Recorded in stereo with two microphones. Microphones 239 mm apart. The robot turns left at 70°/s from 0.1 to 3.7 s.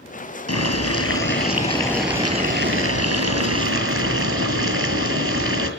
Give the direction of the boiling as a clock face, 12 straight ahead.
8 o'clock.